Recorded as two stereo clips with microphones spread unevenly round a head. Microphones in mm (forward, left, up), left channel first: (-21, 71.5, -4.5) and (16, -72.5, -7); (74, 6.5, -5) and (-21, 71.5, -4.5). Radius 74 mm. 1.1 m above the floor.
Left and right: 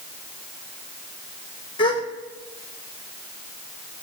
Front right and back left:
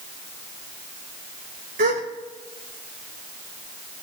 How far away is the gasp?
About 1.3 m.